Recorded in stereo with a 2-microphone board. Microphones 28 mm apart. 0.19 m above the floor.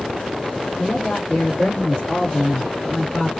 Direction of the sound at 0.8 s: 50° left (ahead or behind).